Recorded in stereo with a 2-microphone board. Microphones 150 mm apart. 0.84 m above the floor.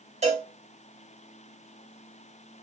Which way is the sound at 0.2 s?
45° right (ahead or behind).